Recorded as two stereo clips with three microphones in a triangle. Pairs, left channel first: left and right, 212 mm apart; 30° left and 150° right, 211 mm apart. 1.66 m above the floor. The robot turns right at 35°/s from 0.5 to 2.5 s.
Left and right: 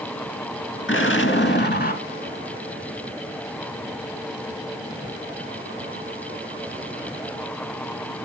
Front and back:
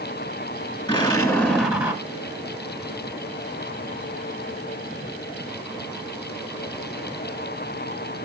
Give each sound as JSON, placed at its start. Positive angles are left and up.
{"t": 0.9, "sound": "an explosion", "azimuth_deg": 95, "distance_m": 1.7}